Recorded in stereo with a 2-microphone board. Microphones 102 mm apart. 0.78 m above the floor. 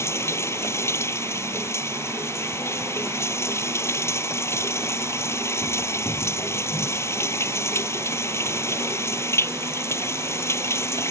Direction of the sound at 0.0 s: 25° left (ahead or behind).